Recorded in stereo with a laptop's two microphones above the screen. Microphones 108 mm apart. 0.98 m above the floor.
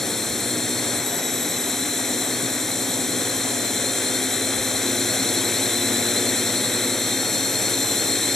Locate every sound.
0.0 s a drone: 5° left (ahead or behind)